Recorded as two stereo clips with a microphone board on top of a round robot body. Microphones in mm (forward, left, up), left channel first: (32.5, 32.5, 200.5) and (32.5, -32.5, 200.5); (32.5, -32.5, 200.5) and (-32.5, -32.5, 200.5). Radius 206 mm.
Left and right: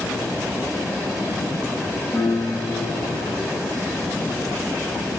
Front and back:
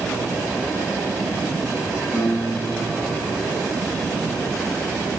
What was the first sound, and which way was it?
A piano, 145° left.